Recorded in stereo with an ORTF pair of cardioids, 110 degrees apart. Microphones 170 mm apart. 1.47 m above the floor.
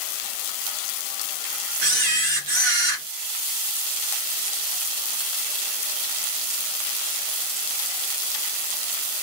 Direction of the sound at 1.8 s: 60° right.